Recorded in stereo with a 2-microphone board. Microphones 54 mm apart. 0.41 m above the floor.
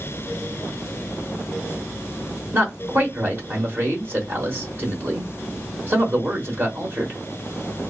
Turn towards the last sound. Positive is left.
turn(degrees=-40)  # may be behind; listen again after turning